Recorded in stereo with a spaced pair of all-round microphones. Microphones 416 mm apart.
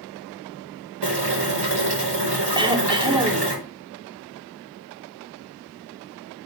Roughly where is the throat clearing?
Centre.